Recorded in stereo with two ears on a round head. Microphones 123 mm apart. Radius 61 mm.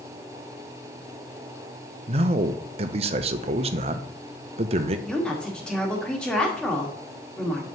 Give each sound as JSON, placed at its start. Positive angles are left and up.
{"t": 2.1, "sound": "a man speaking", "side_deg": -40, "distance_m": 0.5}
{"t": 5.1, "sound": "a woman speaking", "side_deg": 5, "distance_m": 1.6}